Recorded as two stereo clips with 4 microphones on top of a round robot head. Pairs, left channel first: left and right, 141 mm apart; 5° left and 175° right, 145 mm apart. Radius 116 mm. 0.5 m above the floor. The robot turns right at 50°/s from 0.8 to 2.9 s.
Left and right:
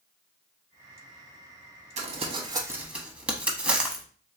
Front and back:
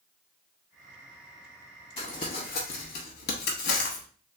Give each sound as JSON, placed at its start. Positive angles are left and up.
{"t": 2.0, "sound": "crumpling", "azimuth_deg": -55, "distance_m": 0.7}